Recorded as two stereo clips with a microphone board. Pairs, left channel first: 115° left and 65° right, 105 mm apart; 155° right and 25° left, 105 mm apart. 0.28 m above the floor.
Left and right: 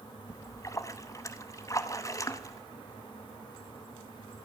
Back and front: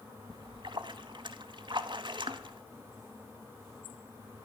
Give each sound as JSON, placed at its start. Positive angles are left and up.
{"t": 0.3, "sound": "a splash", "azimuth_deg": 60, "distance_m": 0.8}